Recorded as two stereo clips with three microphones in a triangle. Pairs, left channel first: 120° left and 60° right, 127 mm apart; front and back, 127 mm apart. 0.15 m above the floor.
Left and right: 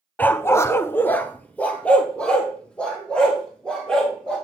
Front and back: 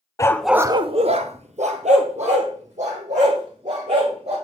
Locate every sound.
0.2 s a dog barking: 50° left, 0.7 m; by 4.3 s 155° right, 5 m